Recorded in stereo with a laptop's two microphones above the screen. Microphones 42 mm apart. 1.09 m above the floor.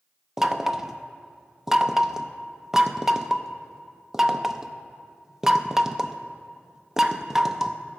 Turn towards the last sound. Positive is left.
turn(degrees=-10)  # may be behind; listen again after turning